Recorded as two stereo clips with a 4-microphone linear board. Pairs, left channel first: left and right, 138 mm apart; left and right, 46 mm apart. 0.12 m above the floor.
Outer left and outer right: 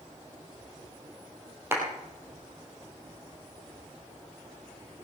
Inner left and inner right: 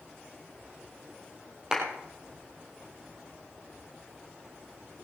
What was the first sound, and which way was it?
A clap, 15° right (ahead or behind).